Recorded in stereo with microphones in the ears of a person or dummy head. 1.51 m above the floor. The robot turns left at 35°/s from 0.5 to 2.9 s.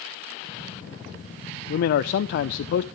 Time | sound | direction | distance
1.7 | a man speaking | 130° left | 0.7 m